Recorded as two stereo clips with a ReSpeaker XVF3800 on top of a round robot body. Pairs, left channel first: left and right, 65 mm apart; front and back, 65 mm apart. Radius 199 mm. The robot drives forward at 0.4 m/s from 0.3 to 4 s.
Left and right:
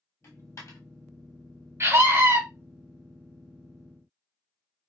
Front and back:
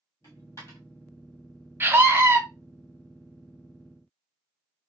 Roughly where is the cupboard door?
I don't hear a cupboard door.